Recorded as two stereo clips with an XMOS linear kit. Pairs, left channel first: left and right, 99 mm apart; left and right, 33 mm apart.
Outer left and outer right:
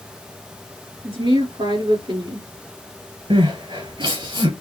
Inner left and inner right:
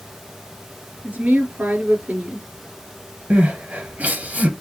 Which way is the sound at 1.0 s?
60° right (ahead or behind).